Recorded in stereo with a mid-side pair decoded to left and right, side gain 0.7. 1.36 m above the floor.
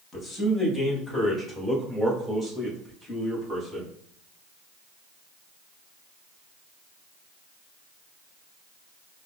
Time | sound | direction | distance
0.1 | a man speaking | 20° left | 1.5 m